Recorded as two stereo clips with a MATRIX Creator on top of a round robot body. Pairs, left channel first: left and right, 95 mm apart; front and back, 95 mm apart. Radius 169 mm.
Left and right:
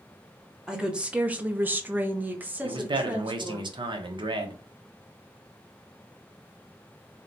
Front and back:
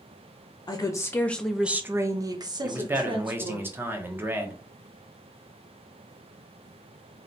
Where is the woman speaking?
10° right, 0.8 m; by 3.6 s 165° right, 1.4 m.